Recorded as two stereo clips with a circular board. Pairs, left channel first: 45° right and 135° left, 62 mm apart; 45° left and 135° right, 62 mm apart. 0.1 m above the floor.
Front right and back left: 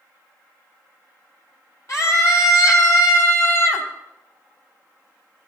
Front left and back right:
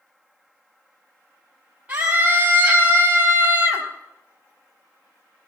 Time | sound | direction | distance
1.9 | a scream | 75° right | 4 m